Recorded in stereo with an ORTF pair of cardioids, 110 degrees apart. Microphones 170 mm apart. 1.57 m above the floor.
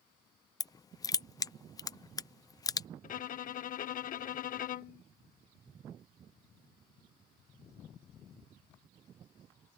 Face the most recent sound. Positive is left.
turn(degrees=55)